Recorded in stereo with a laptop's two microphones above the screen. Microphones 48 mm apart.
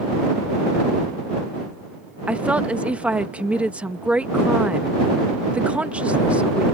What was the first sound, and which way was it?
A woman speaking, 25° right (ahead or behind).